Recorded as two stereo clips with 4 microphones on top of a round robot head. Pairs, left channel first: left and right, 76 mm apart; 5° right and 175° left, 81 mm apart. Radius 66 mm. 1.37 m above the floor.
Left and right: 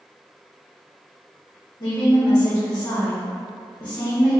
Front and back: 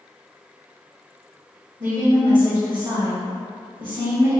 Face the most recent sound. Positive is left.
turn(degrees=135)